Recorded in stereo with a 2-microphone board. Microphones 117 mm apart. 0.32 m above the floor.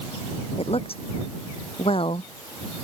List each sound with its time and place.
0.6 s a woman speaking: 55° left (ahead or behind); by 2.3 s 50° left (ahead or behind)